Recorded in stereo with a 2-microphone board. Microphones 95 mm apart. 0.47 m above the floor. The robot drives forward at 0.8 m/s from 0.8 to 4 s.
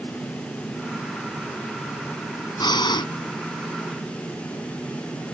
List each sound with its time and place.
2.6 s breathing: 55° left (ahead or behind); by 3.1 s 60° left (ahead or behind)